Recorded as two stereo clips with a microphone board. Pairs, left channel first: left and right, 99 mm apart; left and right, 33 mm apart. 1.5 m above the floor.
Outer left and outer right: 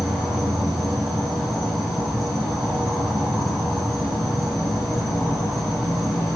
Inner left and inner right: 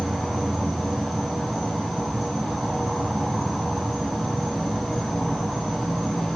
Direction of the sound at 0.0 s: Centre (ahead or behind).